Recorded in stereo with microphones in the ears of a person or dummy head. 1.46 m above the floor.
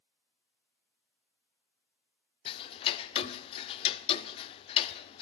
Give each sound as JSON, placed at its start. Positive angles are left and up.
{"t": 2.5, "sound": "ticking", "side_deg": 30, "distance_m": 0.7}